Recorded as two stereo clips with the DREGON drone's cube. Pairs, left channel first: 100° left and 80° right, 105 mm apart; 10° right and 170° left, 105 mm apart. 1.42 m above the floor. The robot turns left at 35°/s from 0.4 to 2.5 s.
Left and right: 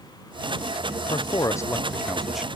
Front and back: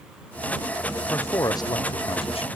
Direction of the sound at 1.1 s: 55° left.